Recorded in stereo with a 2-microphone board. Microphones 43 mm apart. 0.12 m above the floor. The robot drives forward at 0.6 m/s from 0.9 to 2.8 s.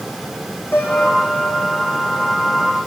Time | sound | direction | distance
0.7 | a piano | 55° left (ahead or behind) | 8 m